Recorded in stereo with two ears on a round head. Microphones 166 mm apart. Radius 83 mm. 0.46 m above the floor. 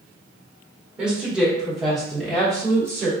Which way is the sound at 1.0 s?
5° right (ahead or behind).